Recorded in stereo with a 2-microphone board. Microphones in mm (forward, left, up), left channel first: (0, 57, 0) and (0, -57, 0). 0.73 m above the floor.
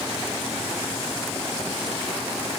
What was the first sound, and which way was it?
Only background noise.